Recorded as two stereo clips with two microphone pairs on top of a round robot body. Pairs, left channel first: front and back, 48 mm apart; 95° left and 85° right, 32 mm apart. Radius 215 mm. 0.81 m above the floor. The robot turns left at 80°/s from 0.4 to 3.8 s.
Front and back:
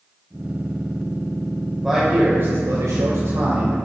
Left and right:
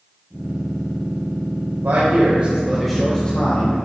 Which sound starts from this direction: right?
A man speaking, at 1.8 s.